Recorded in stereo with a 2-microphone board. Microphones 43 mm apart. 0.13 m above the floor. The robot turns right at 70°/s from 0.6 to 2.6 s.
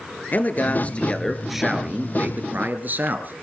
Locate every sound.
0.3 s a man speaking: 125° left, 2.5 m; by 3.4 s 95° right, 2.5 m